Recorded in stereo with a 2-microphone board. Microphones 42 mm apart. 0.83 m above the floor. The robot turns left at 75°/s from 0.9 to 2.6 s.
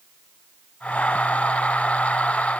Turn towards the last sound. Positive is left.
No sound to turn to.